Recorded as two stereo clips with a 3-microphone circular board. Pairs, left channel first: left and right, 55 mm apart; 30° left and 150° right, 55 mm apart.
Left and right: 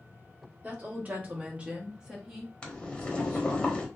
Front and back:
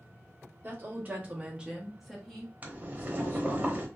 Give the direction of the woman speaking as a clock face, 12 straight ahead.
4 o'clock.